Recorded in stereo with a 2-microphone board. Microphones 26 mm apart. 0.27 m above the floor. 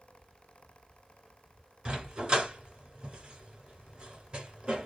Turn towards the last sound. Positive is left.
turn(degrees=-35)  # may be behind; listen again after turning